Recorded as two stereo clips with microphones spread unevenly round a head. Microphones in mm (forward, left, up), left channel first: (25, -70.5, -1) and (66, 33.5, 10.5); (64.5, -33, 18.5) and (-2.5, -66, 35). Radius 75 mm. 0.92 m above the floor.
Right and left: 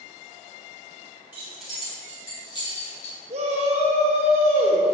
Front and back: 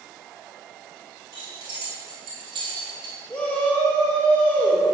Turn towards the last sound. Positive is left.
turn(degrees=90)